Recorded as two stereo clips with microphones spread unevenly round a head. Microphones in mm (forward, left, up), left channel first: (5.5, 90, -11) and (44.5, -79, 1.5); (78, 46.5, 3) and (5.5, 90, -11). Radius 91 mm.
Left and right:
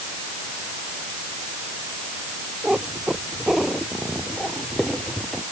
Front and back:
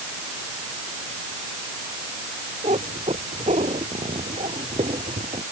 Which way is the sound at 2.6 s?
165° right.